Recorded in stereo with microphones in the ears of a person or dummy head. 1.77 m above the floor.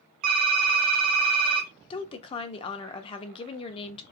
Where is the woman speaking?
35° left (ahead or behind), 0.6 m.